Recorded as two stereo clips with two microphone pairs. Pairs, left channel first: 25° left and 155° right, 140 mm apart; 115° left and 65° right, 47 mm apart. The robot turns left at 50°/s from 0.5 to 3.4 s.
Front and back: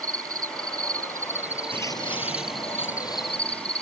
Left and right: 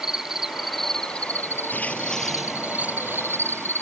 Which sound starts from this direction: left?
Footsteps, at 1.7 s.